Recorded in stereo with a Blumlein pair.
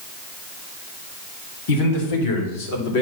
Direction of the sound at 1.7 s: 50° left.